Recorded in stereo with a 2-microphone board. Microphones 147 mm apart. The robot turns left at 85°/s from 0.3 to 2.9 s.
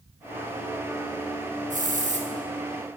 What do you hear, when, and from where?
1.7 s a hiss: 75° right, 0.7 m; by 2.3 s 125° right, 0.7 m